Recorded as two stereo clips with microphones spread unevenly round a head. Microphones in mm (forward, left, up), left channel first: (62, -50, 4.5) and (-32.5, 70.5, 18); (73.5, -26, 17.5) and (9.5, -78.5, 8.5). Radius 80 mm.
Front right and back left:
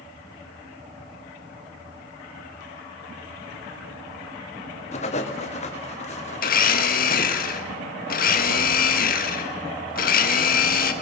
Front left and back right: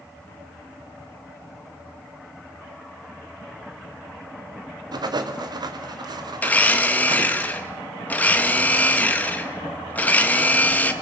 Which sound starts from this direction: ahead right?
A blender, at 6.4 s.